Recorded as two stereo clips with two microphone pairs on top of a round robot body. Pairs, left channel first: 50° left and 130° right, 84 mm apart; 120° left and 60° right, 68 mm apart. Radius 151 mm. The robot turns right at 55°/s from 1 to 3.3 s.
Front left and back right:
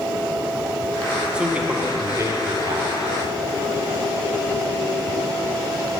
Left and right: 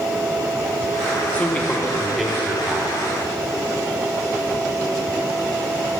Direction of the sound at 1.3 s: 145° left.